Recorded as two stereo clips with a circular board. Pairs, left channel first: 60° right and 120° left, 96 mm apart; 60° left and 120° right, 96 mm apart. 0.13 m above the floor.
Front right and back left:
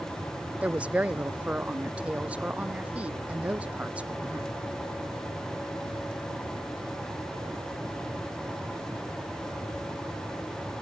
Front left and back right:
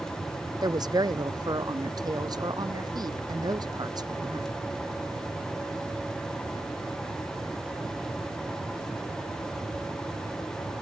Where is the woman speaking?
165° right.